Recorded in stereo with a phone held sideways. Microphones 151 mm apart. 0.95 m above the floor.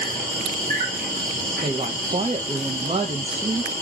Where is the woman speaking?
40° right (ahead or behind), 0.6 m.